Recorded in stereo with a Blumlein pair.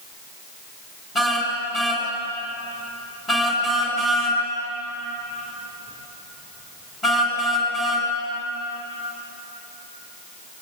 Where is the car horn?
15° left, 6.5 m.